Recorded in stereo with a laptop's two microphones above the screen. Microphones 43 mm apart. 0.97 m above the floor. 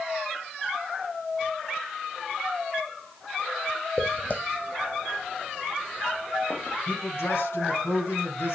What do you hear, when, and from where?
4.0 s footsteps: 35° left (ahead or behind), 1.9 m; by 6.8 s 65° left (ahead or behind), 3.5 m
6.9 s a man speaking: 85° left, 5.5 m